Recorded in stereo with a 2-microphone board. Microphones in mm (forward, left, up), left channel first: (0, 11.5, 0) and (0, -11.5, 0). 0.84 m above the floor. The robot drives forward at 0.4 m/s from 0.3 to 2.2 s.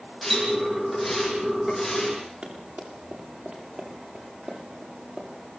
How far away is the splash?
About 9 m.